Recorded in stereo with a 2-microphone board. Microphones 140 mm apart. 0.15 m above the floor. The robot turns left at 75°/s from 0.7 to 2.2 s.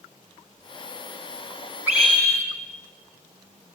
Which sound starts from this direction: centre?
A scream, at 1.9 s.